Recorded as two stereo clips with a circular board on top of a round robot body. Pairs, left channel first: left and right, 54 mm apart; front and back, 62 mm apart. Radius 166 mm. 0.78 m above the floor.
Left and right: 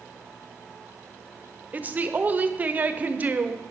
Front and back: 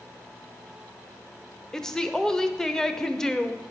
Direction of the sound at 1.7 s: 75° right.